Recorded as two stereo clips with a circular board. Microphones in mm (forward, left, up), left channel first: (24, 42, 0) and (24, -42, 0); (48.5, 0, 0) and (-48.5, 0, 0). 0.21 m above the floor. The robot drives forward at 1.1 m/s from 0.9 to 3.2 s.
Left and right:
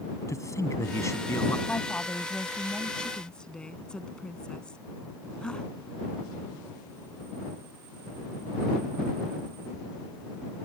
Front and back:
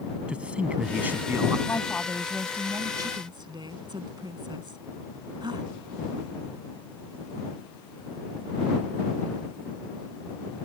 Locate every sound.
0.3 s a man speaking: 110° left; by 1.6 s 135° left
1.7 s a woman speaking: 30° left; by 5.7 s 165° left